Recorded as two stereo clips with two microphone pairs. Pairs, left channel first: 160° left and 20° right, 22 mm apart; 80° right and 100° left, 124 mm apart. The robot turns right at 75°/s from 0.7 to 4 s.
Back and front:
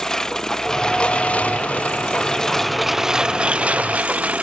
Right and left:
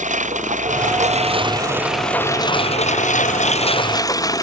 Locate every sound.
0.0 s a lawn mower: 95° left; by 4.4 s 20° right